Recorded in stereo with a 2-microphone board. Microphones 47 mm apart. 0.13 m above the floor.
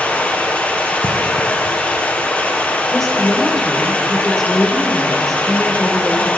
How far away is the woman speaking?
About 1.8 m.